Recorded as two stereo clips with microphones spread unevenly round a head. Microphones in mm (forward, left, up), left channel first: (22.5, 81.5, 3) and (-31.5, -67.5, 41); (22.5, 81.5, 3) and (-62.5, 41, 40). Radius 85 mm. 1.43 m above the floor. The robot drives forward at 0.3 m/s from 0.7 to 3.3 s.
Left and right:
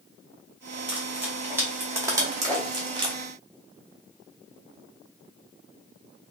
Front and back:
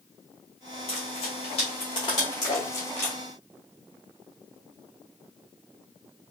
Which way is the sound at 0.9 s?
35° right.